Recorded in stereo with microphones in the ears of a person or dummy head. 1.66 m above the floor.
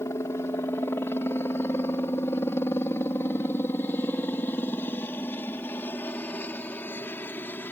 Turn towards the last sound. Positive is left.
turn(degrees=10)  # may be behind; listen again after turning